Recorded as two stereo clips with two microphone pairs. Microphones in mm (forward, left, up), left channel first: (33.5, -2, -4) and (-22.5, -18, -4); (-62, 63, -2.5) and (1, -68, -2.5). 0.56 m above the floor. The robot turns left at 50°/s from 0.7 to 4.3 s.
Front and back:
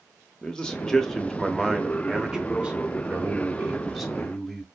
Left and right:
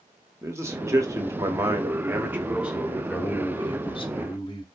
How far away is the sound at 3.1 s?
About 0.9 m.